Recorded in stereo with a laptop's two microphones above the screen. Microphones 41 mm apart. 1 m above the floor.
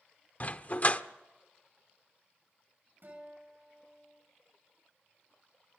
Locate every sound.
0.4 s a dog barking: 40° left (ahead or behind), 0.9 m
3.0 s a guitar: 55° right (ahead or behind), 6.5 m